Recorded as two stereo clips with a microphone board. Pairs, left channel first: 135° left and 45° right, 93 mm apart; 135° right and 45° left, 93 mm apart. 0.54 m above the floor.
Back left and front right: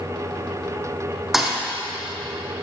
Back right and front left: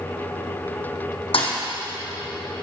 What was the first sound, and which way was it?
A thud, 130° right.